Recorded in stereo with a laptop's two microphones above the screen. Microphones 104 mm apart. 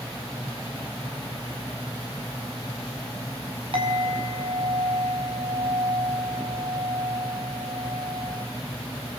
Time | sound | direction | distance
3.7 | a clink | 60° right (ahead or behind) | 5 m